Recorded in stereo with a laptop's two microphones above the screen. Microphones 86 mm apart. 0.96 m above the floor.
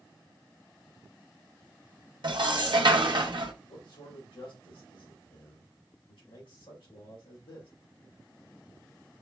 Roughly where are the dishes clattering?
Right.